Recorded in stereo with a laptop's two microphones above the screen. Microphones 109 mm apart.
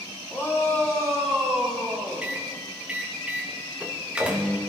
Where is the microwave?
10° right (ahead or behind), 1.4 m.